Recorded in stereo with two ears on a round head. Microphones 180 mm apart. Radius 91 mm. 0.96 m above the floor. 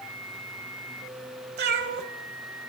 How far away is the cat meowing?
About 1.2 m.